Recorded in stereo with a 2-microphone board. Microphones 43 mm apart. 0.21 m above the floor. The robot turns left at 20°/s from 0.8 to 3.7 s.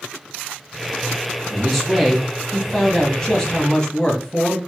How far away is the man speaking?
About 1.2 m.